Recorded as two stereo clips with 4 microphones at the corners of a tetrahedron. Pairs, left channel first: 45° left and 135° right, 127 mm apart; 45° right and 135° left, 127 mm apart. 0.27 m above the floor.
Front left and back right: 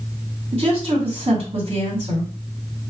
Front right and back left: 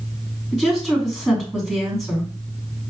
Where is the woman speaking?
130° right, 2 m.